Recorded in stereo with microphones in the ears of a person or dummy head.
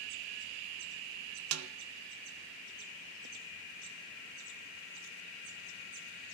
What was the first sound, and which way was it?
A snare drum, 80° right.